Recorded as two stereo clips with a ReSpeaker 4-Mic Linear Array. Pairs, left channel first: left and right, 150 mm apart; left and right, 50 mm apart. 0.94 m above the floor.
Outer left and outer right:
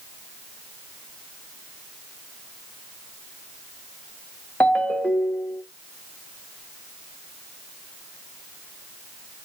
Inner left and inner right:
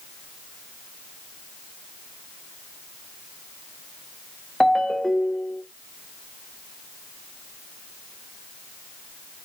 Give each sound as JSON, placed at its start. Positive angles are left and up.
{"t": 4.6, "sound": "a ringtone", "side_deg": 10, "distance_m": 0.9}